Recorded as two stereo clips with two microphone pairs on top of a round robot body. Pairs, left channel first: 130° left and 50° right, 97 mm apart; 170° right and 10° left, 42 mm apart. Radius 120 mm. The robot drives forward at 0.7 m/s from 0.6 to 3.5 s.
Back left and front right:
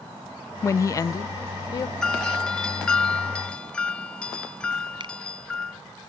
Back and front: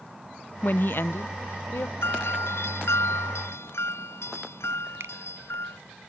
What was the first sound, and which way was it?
A woman speaking, straight behind.